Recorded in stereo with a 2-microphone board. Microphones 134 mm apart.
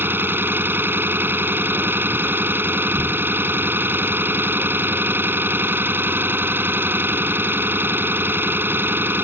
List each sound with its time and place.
0.0 s an engine running: 15° right (ahead or behind)